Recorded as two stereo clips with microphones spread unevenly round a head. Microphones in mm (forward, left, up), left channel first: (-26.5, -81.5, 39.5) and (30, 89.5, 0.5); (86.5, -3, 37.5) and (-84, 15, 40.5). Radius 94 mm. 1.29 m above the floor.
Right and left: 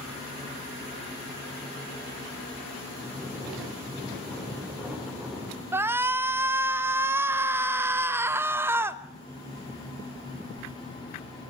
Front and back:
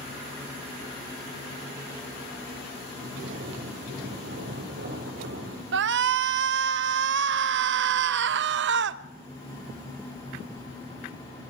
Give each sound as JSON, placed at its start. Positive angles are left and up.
{"t": 2.9, "sound": "snoring", "azimuth_deg": 160, "distance_m": 4.5}
{"t": 5.7, "sound": "a shout", "azimuth_deg": 150, "distance_m": 0.7}